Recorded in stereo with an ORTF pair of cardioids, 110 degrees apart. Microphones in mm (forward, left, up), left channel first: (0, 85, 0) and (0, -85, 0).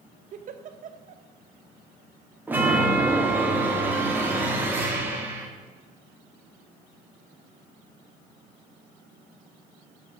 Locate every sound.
0.3 s a giggle: 50° right, 0.8 m
2.5 s a chime: 10° right, 1.9 m